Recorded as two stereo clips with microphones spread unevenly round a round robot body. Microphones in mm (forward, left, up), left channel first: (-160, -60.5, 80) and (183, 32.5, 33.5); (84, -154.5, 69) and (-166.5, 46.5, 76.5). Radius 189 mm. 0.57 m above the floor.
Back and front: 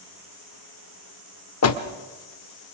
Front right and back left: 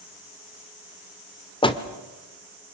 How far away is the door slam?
About 1.5 m.